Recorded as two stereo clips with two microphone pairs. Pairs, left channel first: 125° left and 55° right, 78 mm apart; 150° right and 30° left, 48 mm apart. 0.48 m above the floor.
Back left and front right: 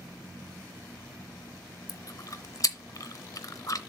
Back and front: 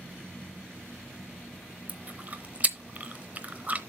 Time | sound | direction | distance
1.9 | chewing | 85° left | 0.8 m